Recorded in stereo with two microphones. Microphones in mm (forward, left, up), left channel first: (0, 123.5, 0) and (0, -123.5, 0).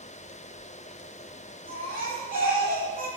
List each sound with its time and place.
1.7 s a baby crying: 35° right (ahead or behind), 8.5 m